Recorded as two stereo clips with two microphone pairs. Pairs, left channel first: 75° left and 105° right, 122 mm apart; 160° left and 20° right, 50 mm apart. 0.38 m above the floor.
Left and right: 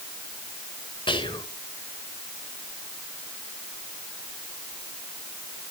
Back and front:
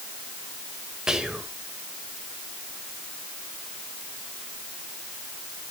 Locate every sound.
1.1 s whispering: 50° left, 1.7 m